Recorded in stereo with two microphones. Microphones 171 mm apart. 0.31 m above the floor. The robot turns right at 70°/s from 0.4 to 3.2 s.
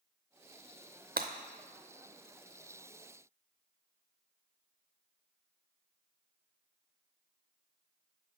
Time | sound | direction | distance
1.2 | breaking glass | 65° right (ahead or behind) | 0.6 m